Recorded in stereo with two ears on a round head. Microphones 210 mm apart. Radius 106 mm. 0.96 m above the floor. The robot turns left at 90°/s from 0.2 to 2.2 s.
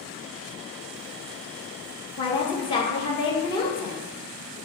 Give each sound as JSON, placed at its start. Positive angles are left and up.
{"t": 2.2, "sound": "a woman speaking", "side_deg": 20, "distance_m": 1.4}